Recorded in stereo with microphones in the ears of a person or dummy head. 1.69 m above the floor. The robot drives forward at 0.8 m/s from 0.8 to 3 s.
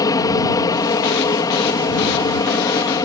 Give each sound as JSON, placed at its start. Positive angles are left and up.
{"t": 0.0, "sound": "an aircraft", "side_deg": 20}